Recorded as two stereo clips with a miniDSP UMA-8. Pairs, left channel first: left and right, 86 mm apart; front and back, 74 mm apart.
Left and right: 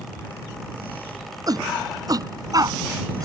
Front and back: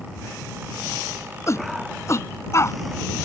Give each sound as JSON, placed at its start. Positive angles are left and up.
{"t": 1.5, "sound": "a shout", "azimuth_deg": -50}